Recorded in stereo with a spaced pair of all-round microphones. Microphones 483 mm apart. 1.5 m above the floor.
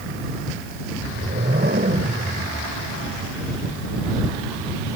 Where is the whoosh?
20° right (ahead or behind).